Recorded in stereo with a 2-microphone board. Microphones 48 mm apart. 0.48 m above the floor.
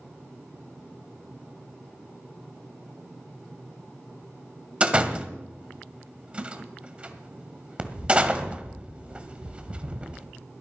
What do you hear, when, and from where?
4.8 s a door slam: 25° right (ahead or behind), 1.7 m